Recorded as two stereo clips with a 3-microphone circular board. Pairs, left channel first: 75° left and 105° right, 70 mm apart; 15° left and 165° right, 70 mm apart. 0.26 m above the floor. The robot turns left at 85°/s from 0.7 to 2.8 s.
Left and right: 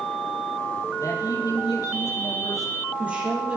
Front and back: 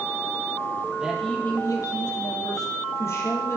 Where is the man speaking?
120° left, 6.5 m; by 3.6 s 35° right, 6.5 m.